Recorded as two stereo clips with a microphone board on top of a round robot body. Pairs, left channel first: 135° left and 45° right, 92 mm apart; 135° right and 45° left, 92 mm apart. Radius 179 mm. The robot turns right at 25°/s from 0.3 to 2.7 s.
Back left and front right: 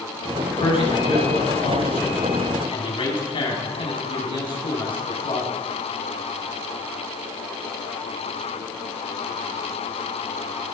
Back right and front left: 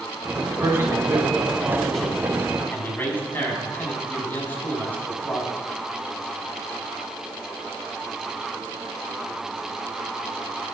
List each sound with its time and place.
0.6 s a man speaking: 105° left, 5.5 m; by 5.5 s 155° left, 5.5 m